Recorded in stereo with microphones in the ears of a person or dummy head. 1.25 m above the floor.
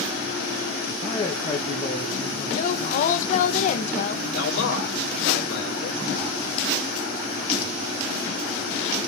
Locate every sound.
1.0 s a man speaking: 20° left (ahead or behind), 1.9 m
2.5 s a woman speaking: 45° left (ahead or behind), 1.0 m
4.3 s a man speaking: 75° left (ahead or behind), 3.5 m